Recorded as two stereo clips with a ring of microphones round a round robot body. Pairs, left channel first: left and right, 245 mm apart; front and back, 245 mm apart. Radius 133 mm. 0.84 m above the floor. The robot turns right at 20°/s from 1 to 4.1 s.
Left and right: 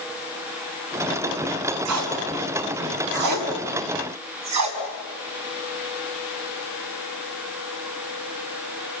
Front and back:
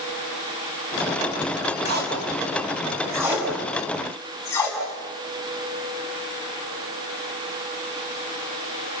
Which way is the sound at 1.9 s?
125° right.